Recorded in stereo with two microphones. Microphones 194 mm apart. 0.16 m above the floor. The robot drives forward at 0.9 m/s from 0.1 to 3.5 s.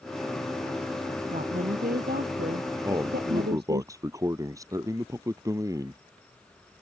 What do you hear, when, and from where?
1.3 s a woman speaking: 50° right (ahead or behind); by 3.8 s 65° right (ahead or behind)
2.8 s a man speaking: 20° right (ahead or behind)